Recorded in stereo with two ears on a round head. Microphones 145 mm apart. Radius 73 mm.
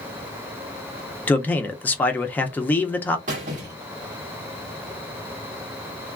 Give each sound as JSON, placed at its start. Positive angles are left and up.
{"t": 1.3, "sound": "a man speaking", "side_deg": 10, "distance_m": 0.5}
{"t": 3.3, "sound": "a squeak", "side_deg": -50, "distance_m": 1.2}